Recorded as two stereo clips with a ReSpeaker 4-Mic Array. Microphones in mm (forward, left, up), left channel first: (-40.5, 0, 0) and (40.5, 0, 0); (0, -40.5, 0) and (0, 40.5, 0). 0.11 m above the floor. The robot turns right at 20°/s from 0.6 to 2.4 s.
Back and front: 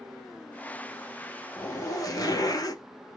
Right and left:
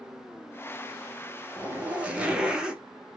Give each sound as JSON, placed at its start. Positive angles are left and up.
{"t": 1.6, "sound": "a zipper", "azimuth_deg": 150, "distance_m": 0.6}